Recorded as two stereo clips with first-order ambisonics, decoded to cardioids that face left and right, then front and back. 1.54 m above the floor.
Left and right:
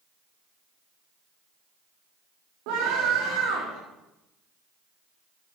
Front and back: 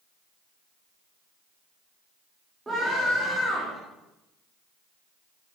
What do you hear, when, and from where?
2.7 s a scream: 100° right, 3 m